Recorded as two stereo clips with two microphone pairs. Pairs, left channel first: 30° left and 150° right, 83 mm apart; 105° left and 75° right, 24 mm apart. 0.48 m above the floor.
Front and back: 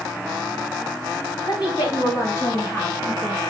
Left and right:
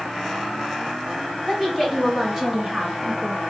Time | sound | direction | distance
1.4 | a woman speaking | 10° left | 3 m